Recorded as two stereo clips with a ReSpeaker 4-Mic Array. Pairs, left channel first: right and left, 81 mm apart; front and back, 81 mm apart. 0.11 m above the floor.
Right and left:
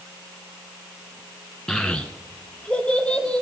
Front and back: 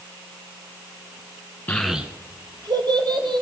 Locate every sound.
1.7 s a child speaking: 20° right, 0.8 m; by 3.4 s 170° right, 2.5 m